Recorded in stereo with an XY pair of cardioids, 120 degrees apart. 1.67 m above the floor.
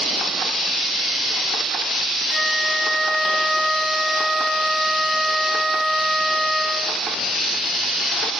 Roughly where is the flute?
Ahead.